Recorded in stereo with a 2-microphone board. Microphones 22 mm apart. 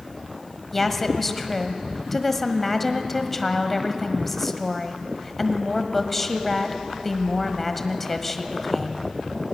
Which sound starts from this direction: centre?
A woman speaking, at 0.7 s.